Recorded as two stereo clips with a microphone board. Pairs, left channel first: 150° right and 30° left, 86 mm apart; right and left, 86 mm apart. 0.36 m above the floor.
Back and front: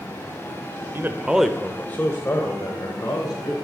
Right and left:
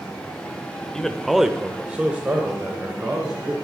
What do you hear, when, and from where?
0.9 s a man speaking: 10° right, 1.0 m; by 3.5 s 160° left, 2.5 m